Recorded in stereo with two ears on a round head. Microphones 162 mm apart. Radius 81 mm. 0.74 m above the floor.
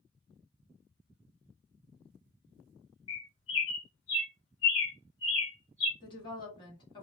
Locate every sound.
3.1 s a bird: 70° left (ahead or behind), 1.2 m
6.0 s a woman speaking: 25° left (ahead or behind), 1.6 m